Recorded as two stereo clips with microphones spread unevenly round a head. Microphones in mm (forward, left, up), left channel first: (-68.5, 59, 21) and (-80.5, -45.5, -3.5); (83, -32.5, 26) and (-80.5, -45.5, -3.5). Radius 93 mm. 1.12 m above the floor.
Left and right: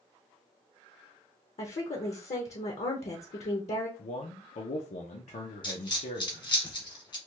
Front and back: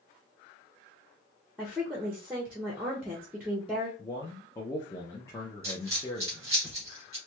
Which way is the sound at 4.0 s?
85° left.